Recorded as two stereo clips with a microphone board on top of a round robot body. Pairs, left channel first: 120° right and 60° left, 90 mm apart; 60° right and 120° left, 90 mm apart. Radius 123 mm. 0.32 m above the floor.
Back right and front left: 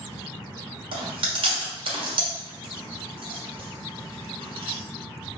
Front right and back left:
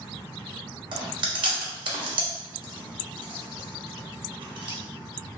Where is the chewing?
85° left, 1.1 m.